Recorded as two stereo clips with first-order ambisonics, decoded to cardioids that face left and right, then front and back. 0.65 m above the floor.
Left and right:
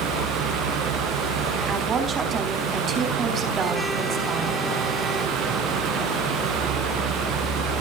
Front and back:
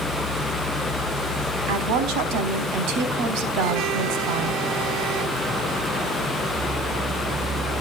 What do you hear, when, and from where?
1.7 s a woman speaking: 150° right, 4 m